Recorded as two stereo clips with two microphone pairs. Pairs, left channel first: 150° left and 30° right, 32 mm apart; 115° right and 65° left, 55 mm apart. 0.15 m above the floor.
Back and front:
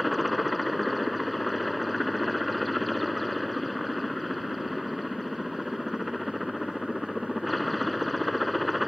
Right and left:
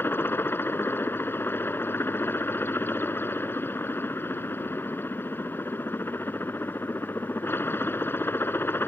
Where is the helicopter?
125° right.